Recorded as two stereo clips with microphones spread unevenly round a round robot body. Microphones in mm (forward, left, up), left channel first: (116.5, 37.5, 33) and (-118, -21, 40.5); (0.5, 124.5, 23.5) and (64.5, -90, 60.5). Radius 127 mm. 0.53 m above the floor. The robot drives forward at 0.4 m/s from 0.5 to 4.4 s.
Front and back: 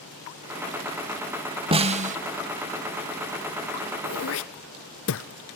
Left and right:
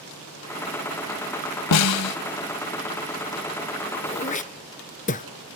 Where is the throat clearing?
45° left, 1.3 m; by 5.3 s 50° left, 1.2 m.